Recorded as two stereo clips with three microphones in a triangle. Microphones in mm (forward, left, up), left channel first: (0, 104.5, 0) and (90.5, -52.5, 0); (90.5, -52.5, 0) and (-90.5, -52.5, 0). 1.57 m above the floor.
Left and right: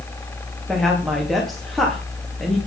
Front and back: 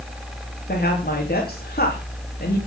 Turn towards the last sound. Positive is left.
turn(degrees=30)